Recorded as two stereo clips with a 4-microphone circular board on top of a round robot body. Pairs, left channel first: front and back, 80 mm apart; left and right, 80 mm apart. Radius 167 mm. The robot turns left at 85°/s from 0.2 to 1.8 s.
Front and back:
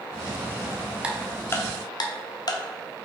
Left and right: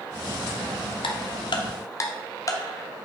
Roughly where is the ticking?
Left.